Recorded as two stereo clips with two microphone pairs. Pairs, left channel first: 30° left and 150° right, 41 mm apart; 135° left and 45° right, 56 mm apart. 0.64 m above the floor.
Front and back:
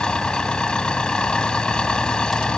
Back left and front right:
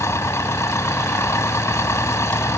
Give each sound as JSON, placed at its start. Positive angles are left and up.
{"t": 0.0, "sound": "an engine running", "azimuth_deg": 100}